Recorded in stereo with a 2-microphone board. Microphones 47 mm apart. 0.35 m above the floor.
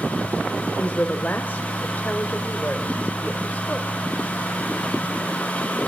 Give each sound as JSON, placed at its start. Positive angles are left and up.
{"t": 0.8, "sound": "a woman speaking", "side_deg": 35, "distance_m": 1.3}